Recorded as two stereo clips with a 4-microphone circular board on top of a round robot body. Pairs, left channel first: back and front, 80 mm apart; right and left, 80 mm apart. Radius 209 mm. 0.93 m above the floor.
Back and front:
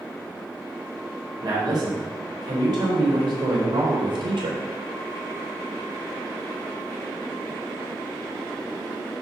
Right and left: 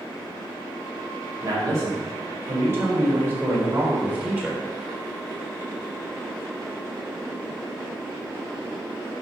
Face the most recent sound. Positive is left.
turn(degrees=15)